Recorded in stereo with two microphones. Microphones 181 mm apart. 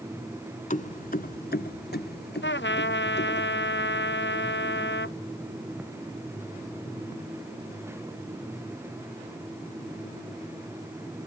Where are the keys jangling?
45° left (ahead or behind); by 3.4 s 75° left (ahead or behind).